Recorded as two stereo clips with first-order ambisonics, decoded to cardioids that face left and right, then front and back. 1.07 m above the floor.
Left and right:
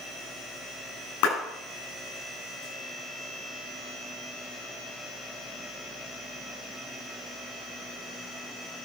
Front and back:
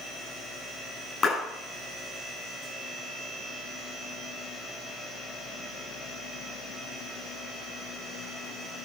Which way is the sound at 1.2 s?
75° left.